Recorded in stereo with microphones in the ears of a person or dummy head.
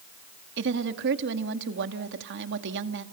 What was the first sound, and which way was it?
A woman speaking, 60° right (ahead or behind).